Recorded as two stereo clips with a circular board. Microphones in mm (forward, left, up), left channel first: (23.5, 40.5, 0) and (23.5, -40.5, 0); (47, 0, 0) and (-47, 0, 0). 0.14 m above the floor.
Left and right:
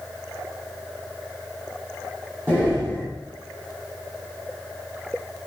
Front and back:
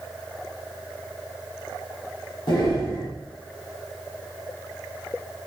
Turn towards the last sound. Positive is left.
turn(degrees=-25)